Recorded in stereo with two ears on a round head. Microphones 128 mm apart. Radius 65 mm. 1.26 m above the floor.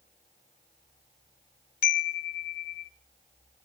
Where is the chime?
65° left (ahead or behind), 0.9 m.